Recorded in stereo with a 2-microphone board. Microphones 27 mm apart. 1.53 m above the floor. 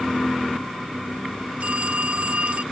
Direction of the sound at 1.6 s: 60° right (ahead or behind).